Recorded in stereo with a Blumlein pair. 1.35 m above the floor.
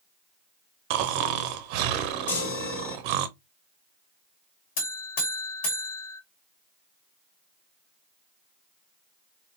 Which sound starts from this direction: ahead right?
Snoring, at 0.9 s.